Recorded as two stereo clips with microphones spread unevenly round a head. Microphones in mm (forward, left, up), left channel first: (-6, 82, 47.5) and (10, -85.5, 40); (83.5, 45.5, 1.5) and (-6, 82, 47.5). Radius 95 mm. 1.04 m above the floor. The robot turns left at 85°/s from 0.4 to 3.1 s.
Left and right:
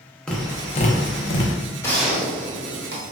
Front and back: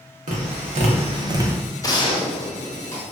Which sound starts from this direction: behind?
Tapping, at 0.3 s.